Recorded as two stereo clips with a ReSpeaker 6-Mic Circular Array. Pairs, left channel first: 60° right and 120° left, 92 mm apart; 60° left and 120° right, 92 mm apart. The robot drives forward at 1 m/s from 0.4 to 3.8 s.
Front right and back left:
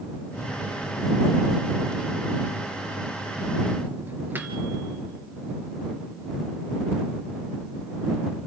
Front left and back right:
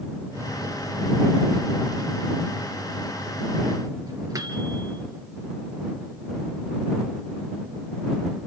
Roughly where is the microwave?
Right.